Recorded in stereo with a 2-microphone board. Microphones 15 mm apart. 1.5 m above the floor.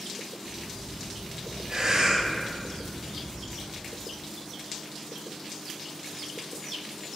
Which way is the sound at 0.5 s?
55° right (ahead or behind).